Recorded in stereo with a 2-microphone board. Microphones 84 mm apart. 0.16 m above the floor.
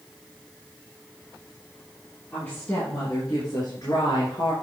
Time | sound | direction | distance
2.3 | a woman speaking | 25° left (ahead or behind) | 3 m